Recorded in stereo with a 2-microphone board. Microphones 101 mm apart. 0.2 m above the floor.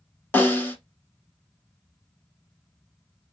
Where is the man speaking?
No man speaking in this recording.